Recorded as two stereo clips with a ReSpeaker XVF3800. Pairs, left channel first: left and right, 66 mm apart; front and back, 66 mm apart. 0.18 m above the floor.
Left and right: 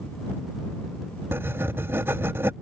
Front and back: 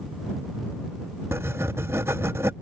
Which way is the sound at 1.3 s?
135° right.